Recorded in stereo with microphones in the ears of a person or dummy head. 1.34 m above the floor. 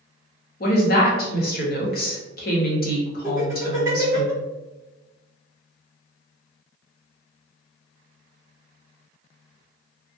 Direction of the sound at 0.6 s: 50° left (ahead or behind).